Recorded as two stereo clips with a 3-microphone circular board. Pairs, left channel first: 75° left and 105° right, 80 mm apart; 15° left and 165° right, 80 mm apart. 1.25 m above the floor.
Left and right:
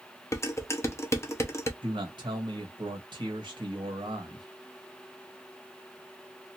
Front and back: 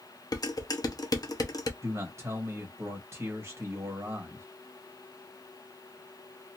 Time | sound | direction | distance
0.3 | dishes clattering | 30° left | 0.7 m
1.8 | a man speaking | 110° right | 1.6 m